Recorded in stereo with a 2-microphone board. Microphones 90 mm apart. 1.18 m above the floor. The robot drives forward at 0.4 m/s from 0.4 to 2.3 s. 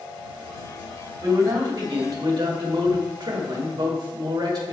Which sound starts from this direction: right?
A man speaking, at 1.2 s.